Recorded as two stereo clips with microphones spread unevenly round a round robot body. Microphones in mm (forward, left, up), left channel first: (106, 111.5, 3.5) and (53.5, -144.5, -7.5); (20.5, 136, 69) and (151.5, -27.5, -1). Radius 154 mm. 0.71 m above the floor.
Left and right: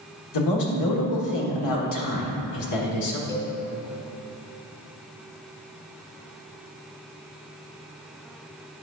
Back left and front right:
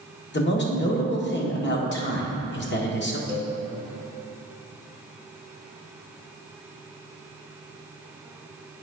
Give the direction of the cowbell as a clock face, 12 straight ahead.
10 o'clock.